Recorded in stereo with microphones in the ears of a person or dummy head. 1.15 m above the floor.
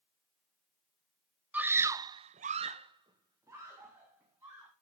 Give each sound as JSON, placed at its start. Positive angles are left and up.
{"t": 1.5, "sound": "a scream", "side_deg": -5, "distance_m": 1.0}